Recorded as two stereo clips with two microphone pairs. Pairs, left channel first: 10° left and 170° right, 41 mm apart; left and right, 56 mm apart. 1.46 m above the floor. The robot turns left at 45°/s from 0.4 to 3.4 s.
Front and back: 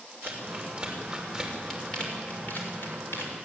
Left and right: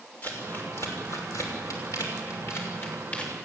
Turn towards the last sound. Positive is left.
turn(degrees=15)